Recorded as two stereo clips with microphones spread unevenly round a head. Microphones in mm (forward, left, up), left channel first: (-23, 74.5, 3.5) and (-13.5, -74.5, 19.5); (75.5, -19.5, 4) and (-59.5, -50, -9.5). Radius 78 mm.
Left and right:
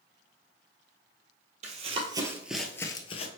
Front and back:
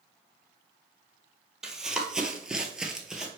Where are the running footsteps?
75° right, 1.5 m; by 3.3 s 100° left, 1.2 m.